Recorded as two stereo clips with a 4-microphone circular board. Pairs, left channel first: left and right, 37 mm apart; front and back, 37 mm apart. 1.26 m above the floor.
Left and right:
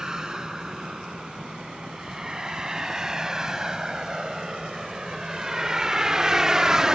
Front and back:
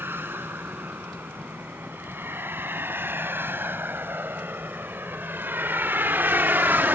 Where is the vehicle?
165° right; by 7.0 s 160° right.